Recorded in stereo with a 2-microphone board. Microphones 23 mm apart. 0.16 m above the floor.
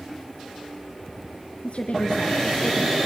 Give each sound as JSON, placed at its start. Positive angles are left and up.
{"t": 1.6, "sound": "a woman speaking", "side_deg": 55, "distance_m": 2.0}